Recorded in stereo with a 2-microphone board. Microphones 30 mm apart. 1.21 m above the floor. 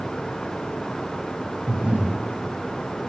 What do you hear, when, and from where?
1.7 s breathing: 50° right (ahead or behind), 8.5 m